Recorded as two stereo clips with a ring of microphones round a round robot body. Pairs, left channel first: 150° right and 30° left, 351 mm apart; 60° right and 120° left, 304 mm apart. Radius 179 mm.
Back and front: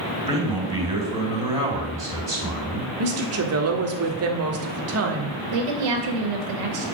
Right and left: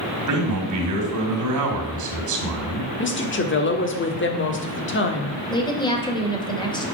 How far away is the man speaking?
About 2.5 m.